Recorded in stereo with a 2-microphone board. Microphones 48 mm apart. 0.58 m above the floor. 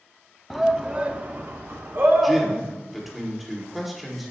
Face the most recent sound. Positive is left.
turn(degrees=-5)  # may be behind; listen again after turning